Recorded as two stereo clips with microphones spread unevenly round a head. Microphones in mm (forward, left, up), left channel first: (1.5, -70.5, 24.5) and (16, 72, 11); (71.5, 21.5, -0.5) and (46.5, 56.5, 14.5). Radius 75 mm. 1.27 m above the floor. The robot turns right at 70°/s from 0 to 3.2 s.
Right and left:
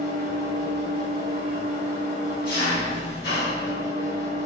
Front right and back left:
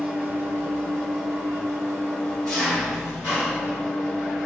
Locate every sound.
0.0 s an engine running: 60° left, 1.4 m; by 4.5 s 75° right, 1.4 m